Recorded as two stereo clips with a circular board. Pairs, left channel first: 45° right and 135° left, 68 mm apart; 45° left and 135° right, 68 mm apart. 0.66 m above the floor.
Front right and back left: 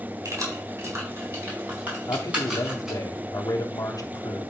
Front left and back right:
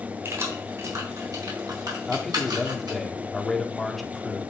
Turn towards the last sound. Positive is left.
turn(degrees=-45)